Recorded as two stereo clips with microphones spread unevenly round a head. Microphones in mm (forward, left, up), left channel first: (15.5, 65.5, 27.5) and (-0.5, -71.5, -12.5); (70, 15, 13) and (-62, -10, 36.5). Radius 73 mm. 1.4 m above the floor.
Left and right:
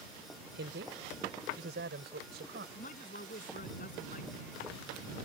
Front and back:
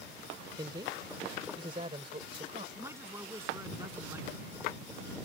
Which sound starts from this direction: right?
A woman speaking, at 0.6 s.